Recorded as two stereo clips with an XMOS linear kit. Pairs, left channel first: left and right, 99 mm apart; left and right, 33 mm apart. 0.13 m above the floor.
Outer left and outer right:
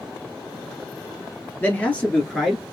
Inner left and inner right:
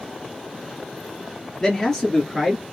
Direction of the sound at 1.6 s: 20° left (ahead or behind).